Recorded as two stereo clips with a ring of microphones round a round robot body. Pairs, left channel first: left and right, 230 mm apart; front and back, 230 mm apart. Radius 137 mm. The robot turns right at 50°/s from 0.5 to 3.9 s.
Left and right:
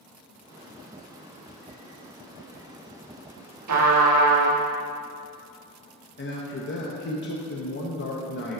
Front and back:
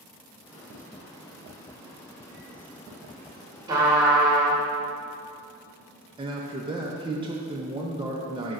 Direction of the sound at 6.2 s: 115° left.